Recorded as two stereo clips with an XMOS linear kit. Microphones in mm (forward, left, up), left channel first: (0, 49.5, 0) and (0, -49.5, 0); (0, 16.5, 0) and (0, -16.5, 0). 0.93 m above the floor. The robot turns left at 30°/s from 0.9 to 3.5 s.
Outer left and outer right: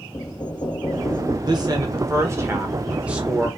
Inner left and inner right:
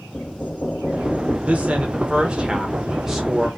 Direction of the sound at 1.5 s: 115° right.